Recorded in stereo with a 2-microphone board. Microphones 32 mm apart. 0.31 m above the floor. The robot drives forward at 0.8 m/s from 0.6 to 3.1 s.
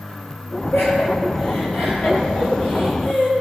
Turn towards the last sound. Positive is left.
turn(degrees=60)  # may be behind; listen again after turning